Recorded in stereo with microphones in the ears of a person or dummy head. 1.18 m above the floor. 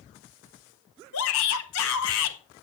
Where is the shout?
75° left (ahead or behind), 1.8 m.